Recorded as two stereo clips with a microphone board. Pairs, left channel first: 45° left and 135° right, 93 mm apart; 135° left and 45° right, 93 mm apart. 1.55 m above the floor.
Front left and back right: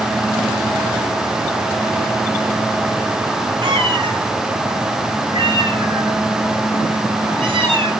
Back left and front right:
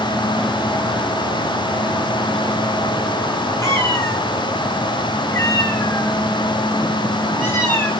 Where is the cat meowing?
170° right, 7.5 m; by 7.9 s 160° right, 10 m.